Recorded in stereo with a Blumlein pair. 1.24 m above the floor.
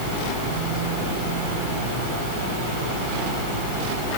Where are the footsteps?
I don't hear footsteps.